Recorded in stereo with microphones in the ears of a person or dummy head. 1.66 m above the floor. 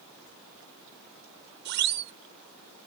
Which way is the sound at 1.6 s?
60° right (ahead or behind).